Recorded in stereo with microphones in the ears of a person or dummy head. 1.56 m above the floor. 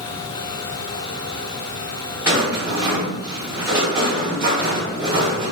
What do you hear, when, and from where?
2.2 s a rattle: 20° right (ahead or behind), 1.3 m